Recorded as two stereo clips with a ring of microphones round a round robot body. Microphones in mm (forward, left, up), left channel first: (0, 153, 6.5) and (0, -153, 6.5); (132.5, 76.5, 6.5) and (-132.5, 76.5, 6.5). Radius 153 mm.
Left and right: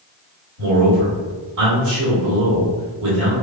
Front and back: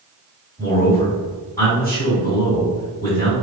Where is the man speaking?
75° right, 1.5 m.